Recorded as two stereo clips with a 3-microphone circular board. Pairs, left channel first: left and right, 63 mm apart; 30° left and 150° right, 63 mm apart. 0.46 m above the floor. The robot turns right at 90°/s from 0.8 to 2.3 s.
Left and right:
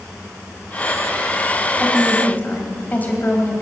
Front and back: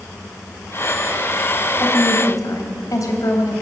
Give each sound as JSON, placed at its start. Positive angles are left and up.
{"t": 1.8, "sound": "a woman speaking", "azimuth_deg": -15, "distance_m": 3.0}